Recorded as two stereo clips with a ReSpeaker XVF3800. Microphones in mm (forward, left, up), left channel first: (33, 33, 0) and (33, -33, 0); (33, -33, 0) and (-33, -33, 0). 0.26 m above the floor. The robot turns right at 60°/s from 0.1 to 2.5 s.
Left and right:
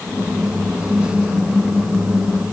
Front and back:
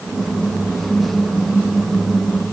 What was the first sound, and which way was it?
Only background noise.